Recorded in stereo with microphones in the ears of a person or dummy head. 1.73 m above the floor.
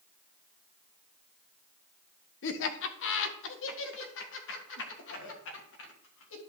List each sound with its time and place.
2.4 s laughter: 55° left (ahead or behind), 1.0 m; by 6.4 s 70° left (ahead or behind), 3 m